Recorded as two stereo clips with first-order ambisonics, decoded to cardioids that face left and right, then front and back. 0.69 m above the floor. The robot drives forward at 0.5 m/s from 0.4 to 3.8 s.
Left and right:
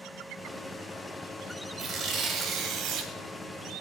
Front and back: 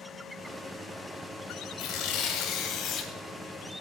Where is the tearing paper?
35° right, 1.5 m; by 3.1 s 55° right, 1.0 m.